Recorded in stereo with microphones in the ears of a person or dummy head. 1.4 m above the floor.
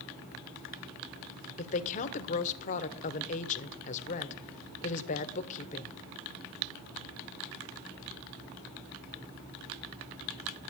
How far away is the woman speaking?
About 1.1 m.